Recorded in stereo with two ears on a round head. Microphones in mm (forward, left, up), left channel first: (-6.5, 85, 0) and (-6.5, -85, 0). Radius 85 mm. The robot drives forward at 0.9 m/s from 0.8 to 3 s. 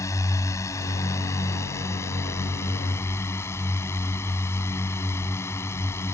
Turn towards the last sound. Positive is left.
turn(degrees=15)  # may be behind; listen again after turning